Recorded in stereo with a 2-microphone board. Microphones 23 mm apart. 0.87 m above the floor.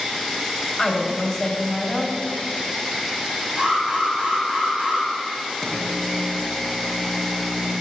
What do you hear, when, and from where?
0.8 s a woman speaking: 20° left (ahead or behind), 0.9 m
3.6 s an alarm: 55° right (ahead or behind), 1.9 m
5.6 s a microwave: 10° right (ahead or behind), 1.4 m